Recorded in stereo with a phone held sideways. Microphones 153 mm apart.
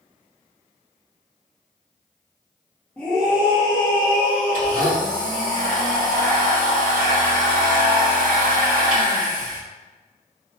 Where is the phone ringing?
No phone ringing in this recording.